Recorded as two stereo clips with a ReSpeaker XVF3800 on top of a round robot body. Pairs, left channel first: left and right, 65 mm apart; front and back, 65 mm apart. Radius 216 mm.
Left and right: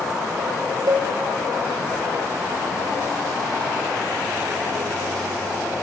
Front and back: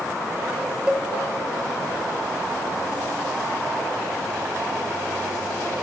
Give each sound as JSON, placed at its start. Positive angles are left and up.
{"t": 0.9, "sound": "a cowbell", "azimuth_deg": -105, "distance_m": 2.5}